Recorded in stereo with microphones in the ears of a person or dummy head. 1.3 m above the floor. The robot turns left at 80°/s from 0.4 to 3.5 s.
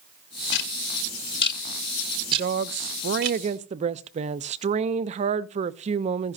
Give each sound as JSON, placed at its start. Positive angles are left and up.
{"t": 0.5, "sound": "ticking", "side_deg": 55, "distance_m": 1.2}
{"t": 2.3, "sound": "a woman speaking", "azimuth_deg": -45, "distance_m": 0.5}